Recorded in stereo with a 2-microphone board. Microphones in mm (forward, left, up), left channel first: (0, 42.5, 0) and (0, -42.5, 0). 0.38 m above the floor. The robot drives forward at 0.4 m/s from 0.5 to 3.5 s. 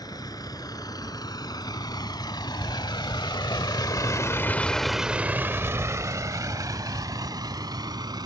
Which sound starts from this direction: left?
A vehicle, at 0.0 s.